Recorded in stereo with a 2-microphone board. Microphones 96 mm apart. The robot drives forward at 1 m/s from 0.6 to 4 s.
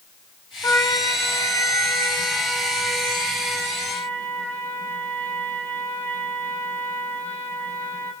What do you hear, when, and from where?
0.6 s a trumpet: 35° left (ahead or behind), 3 m; by 8.1 s 15° left (ahead or behind), 6 m